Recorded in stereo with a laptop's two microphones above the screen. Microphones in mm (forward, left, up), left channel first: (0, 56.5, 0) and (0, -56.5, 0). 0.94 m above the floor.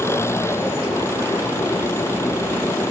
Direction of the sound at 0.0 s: 25° left (ahead or behind).